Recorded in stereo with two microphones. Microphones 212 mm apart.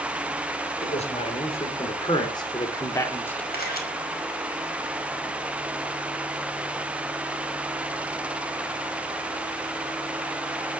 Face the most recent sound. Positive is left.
turn(degrees=45)  # may be behind; listen again after turning